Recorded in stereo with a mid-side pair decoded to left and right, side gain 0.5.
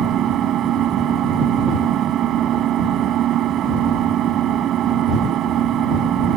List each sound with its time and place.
0.0 s an engine running: 65° right